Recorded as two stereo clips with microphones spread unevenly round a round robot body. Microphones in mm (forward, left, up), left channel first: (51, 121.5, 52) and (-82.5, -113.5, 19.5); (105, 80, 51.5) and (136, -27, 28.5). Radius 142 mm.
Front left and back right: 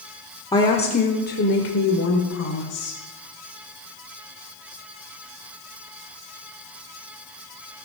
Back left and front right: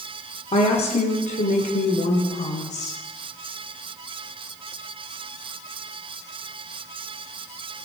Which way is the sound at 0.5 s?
140° left.